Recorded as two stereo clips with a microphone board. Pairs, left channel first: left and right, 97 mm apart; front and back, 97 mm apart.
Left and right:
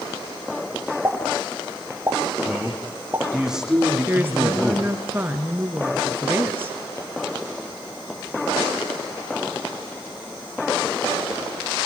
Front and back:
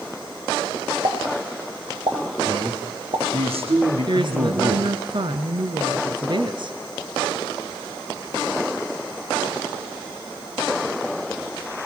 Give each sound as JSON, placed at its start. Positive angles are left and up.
{"t": 1.0, "sound": "a pop", "azimuth_deg": -155, "distance_m": 5.0}
{"t": 2.5, "sound": "a man speaking", "azimuth_deg": -175, "distance_m": 8.5}
{"t": 4.1, "sound": "a woman speaking", "azimuth_deg": -155, "distance_m": 2.5}